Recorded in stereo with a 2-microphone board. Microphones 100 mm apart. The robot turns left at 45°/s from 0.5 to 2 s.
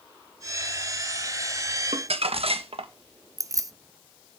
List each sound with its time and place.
1.9 s crumpling: 75° right (ahead or behind), 1.1 m
3.4 s keys jangling: 35° right (ahead or behind), 0.5 m